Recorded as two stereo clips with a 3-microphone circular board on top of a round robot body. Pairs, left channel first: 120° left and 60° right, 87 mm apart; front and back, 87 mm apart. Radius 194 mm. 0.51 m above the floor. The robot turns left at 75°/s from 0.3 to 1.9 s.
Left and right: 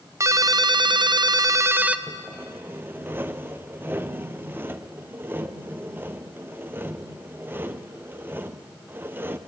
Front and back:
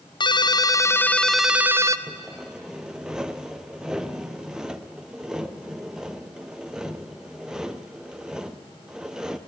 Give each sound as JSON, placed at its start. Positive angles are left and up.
{"t": 0.2, "sound": "a ringtone", "azimuth_deg": -10, "distance_m": 1.0}
{"t": 2.1, "sound": "sawing", "azimuth_deg": -105, "distance_m": 1.3}